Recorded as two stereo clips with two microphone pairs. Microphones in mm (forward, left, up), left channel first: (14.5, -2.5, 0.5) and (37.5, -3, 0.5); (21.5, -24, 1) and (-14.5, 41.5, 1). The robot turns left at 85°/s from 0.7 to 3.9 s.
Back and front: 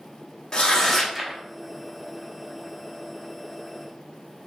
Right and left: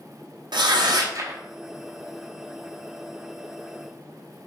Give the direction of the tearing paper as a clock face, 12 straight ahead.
8 o'clock.